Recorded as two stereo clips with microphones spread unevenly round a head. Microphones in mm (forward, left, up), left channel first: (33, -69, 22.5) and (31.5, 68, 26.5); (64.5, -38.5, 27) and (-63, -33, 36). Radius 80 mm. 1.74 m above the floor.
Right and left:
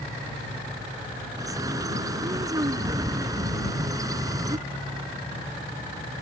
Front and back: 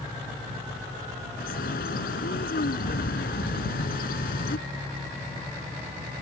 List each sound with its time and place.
1.4 s a bird: 25° left